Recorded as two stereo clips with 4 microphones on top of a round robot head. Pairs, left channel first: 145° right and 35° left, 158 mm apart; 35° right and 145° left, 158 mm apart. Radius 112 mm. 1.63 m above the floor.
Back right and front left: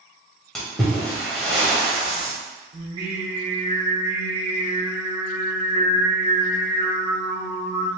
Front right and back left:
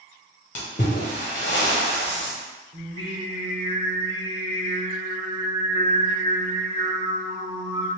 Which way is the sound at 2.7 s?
95° left.